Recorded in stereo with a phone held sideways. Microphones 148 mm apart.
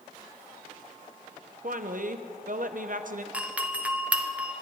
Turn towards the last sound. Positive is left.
turn(degrees=-10)  # may be behind; listen again after turning